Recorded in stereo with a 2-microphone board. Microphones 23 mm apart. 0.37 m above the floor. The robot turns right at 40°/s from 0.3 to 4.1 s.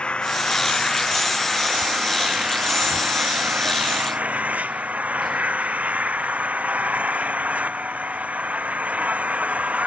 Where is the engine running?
130° left; by 9.9 s 75° right.